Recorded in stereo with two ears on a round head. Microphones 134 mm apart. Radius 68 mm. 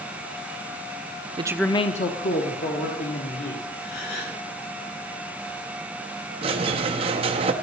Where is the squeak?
35° right (ahead or behind), 0.8 m.